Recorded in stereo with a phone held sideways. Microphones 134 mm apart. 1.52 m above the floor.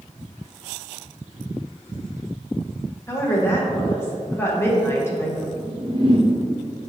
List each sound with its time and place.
3.1 s a woman speaking: 20° left (ahead or behind), 1.4 m
5.5 s a whoosh: 40° right (ahead or behind), 0.6 m